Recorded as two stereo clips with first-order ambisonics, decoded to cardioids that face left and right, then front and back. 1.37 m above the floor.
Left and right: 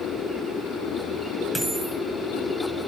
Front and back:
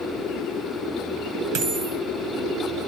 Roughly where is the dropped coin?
Behind.